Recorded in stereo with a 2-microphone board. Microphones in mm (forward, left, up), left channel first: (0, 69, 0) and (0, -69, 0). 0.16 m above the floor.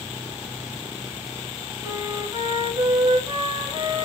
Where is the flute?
35° right (ahead or behind), 1.3 m.